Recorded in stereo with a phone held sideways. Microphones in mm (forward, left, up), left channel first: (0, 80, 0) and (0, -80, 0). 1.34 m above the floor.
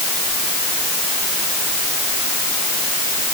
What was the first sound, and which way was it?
Only background noise.